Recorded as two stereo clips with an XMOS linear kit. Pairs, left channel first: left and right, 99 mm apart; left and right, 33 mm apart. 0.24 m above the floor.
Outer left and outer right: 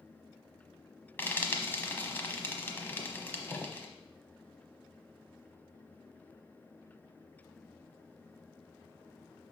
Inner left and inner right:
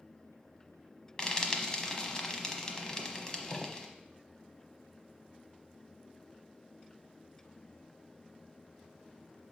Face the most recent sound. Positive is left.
turn(degrees=20)  # may be behind; listen again after turning